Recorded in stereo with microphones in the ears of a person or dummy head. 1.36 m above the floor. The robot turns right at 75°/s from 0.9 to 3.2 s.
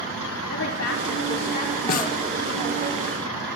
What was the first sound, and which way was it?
A woman speaking, 90° left.